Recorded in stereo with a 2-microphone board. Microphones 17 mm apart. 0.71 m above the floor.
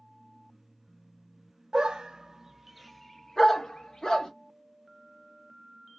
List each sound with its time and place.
1.7 s a dog barking: 60° right (ahead or behind), 0.7 m; by 4.3 s 45° left (ahead or behind), 1.0 m